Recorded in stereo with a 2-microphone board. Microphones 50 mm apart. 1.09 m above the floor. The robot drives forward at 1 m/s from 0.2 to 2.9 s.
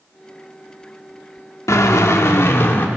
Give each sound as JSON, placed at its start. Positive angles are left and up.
{"t": 1.7, "sound": "a drill", "side_deg": 80, "distance_m": 1.6}